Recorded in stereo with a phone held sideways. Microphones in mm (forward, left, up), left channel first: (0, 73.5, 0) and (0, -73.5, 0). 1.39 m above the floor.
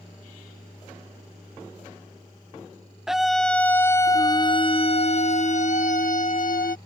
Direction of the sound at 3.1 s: 5° right (ahead or behind).